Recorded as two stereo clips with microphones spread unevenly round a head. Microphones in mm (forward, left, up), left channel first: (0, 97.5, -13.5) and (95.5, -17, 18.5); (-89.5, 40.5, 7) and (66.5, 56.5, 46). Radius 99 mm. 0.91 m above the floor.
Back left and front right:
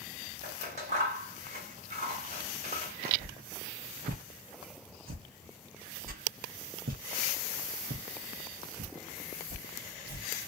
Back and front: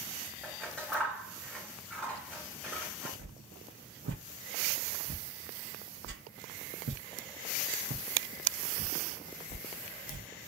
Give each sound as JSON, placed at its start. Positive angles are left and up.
{"t": 0.4, "sound": "scissors", "azimuth_deg": -75, "distance_m": 1.0}
{"t": 3.2, "sound": "a whoosh", "azimuth_deg": -20, "distance_m": 0.7}